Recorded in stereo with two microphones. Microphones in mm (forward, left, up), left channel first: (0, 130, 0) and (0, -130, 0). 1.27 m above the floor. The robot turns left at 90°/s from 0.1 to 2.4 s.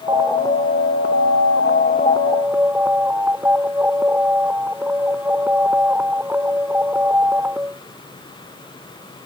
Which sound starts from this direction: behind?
An alarm, at 0.1 s.